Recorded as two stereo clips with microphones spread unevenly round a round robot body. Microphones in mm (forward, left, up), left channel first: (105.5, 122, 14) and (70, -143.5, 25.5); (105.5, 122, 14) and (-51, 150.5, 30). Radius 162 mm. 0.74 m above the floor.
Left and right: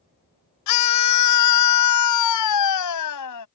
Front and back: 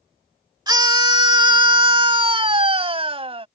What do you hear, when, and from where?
0.7 s a scream: 105° left; by 3.5 s 115° left